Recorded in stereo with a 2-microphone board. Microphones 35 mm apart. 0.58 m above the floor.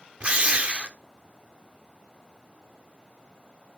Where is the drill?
35° right (ahead or behind), 1.2 m.